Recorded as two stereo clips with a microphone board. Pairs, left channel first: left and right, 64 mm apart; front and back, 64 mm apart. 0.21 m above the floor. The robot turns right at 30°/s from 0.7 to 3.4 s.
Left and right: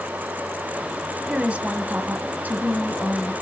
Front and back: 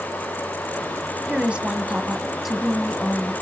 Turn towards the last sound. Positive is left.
turn(degrees=-70)